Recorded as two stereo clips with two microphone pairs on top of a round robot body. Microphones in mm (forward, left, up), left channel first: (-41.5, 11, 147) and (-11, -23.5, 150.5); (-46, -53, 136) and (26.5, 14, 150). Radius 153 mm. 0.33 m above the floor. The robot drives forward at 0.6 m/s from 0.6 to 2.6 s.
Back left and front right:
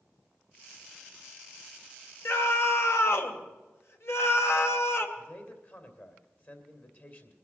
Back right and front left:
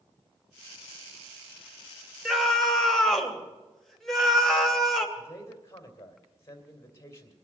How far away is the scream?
About 2.5 m.